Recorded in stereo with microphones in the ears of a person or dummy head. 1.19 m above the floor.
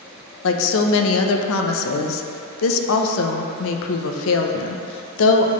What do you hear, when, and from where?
0.4 s a woman speaking: 75° left (ahead or behind), 0.7 m